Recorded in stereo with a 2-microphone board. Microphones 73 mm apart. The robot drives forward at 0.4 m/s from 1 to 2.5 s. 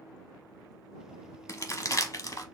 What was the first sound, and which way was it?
Crumpling, 45° left (ahead or behind).